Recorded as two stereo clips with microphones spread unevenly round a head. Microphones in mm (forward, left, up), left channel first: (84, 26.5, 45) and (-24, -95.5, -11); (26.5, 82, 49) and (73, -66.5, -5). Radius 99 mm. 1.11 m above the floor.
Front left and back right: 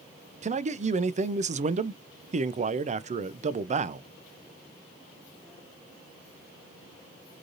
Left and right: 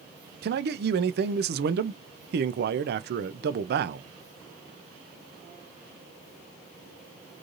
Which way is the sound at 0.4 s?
85° right.